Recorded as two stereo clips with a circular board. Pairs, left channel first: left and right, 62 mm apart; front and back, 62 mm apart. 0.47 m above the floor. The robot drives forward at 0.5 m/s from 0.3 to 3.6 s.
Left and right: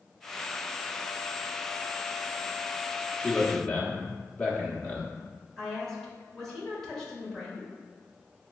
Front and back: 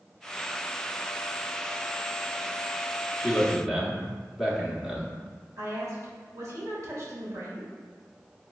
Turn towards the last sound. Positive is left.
turn(degrees=175)